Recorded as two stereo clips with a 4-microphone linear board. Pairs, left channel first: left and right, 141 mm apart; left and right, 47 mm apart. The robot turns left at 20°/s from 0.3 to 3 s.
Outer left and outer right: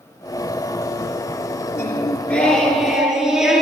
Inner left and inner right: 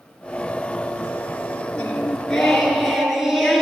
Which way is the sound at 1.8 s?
20° left (ahead or behind).